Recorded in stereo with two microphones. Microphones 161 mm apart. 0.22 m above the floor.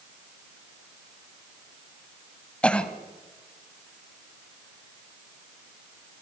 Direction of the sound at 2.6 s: 5° left (ahead or behind).